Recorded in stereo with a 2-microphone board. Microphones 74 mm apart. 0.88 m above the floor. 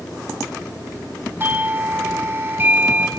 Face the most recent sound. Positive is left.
turn(degrees=-30)  # may be behind; listen again after turning